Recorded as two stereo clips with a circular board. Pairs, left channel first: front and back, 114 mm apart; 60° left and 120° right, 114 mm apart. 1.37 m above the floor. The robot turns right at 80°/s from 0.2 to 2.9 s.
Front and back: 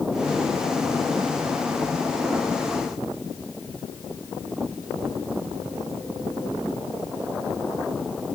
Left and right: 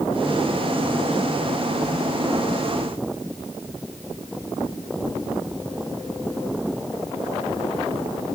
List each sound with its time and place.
Only background noise.